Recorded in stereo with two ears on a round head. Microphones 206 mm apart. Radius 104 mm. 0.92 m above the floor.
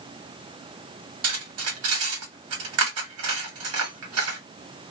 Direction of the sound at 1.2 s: 75° right (ahead or behind).